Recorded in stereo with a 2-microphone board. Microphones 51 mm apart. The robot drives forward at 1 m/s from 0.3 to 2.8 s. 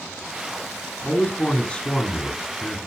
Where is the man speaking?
20° left (ahead or behind), 1.9 m.